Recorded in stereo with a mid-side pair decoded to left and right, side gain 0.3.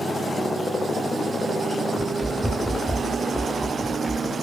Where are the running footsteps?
10° left, 5.5 m.